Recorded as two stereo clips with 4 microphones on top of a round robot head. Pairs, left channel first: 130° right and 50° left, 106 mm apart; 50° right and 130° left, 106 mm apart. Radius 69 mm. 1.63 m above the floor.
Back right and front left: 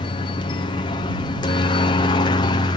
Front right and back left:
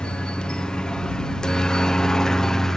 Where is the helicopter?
130° right; by 2.8 s 135° right.